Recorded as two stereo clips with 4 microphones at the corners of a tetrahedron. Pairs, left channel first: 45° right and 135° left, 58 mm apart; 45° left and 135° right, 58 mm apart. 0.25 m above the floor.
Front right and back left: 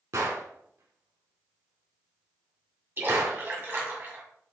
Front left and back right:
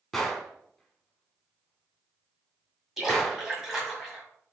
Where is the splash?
145° left, 2.0 m.